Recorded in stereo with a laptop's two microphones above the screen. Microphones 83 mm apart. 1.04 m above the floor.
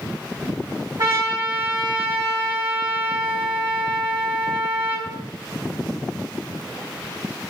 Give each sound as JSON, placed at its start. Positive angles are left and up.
{"t": 1.0, "sound": "a trumpet", "side_deg": -55, "distance_m": 1.5}